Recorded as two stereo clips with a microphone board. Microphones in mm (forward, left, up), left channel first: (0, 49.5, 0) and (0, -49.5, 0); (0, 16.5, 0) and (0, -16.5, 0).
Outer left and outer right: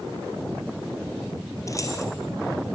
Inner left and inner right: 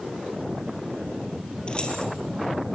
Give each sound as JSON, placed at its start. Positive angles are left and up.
{"t": 1.7, "sound": "keys jangling", "side_deg": 35, "distance_m": 3.0}